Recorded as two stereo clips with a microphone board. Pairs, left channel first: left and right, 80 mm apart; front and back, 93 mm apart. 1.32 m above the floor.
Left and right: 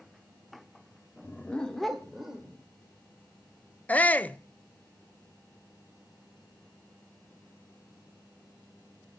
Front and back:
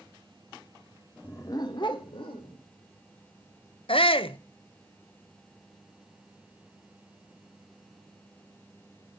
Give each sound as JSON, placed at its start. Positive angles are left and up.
{"t": 1.2, "sound": "a dog barking", "azimuth_deg": 55, "distance_m": 0.9}
{"t": 3.9, "sound": "a shout", "azimuth_deg": 20, "distance_m": 0.7}